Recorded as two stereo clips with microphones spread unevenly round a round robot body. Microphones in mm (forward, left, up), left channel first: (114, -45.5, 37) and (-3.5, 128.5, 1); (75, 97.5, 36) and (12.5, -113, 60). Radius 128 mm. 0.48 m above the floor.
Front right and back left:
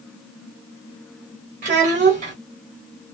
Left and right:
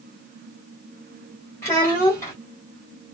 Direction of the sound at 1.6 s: 140° left.